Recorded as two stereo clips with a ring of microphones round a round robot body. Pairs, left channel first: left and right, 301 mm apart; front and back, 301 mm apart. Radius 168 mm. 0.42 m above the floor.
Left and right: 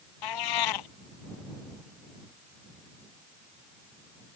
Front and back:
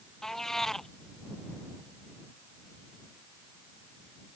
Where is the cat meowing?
90° left.